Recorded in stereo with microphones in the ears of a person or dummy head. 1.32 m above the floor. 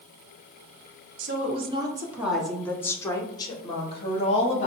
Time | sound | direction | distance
1.2 | a woman speaking | 40° right (ahead or behind) | 0.8 m